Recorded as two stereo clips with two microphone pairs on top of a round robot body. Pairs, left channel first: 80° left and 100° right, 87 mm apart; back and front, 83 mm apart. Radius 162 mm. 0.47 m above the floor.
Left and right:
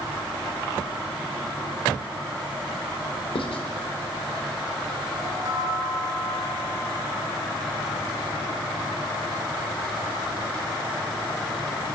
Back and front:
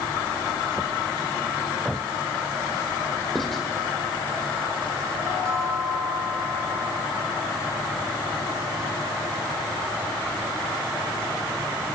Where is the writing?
95° left, 1.1 m.